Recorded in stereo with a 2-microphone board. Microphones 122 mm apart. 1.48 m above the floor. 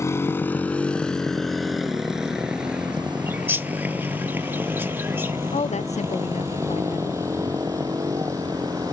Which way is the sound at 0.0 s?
25° left (ahead or behind).